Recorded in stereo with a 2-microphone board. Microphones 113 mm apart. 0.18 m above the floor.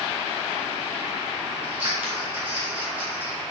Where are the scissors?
20° right (ahead or behind), 2 m.